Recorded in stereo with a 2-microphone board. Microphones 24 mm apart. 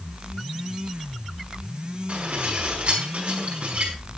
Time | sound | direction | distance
2.1 | dishes clattering | 60° right (ahead or behind) | 5.5 m